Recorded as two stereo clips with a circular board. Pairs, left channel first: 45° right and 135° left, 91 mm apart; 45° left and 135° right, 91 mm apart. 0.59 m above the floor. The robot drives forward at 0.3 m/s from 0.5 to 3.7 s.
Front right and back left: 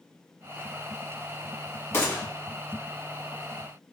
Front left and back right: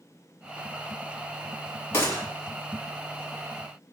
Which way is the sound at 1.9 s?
Straight ahead.